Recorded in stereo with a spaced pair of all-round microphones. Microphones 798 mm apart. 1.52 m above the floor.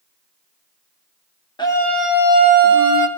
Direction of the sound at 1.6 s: 5° left (ahead or behind).